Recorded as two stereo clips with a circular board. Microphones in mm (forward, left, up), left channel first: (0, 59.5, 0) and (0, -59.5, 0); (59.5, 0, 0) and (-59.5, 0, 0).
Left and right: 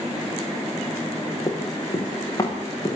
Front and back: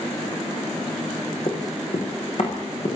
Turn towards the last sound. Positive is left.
turn(degrees=30)